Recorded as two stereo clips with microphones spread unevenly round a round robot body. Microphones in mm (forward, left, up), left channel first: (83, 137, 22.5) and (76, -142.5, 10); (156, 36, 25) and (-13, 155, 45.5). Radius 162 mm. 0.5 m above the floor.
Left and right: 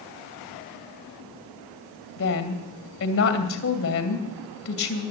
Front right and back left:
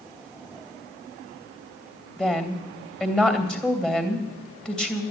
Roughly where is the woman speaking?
Ahead left.